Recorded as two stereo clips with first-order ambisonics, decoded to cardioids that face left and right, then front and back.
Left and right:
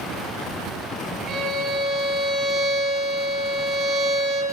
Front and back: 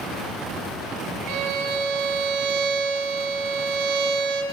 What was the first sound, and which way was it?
A violin, 155° right.